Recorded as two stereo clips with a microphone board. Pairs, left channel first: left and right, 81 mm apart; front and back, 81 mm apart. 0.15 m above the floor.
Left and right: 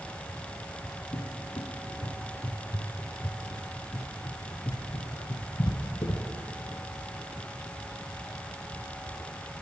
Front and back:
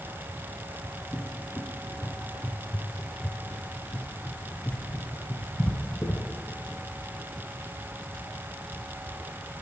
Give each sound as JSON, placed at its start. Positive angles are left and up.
{"t": 1.1, "sound": "a cupboard door", "azimuth_deg": 70, "distance_m": 0.5}